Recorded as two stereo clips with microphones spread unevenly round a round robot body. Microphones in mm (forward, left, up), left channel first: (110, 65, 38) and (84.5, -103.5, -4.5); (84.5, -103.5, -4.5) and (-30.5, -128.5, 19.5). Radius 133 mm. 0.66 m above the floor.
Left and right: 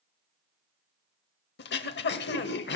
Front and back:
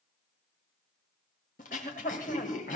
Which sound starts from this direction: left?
Throat clearing, at 1.6 s.